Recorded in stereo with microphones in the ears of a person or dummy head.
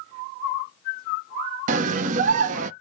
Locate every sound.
1.7 s a scream: 45° right (ahead or behind), 0.6 m